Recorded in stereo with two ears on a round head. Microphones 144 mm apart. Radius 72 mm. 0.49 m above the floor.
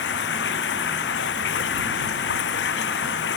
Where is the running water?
85° left.